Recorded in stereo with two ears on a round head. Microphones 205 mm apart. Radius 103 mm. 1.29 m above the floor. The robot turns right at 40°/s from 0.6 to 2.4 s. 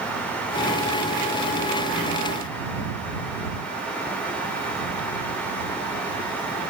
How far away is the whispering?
No whispering in this recording.